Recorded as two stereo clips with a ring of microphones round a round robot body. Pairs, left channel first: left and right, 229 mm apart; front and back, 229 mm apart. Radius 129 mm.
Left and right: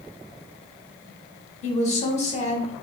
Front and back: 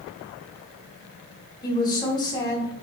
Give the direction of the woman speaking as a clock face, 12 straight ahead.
10 o'clock.